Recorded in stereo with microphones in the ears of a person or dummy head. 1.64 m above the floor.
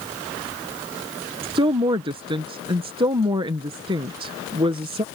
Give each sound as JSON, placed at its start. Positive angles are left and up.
{"t": 1.4, "sound": "a woman speaking", "side_deg": -25}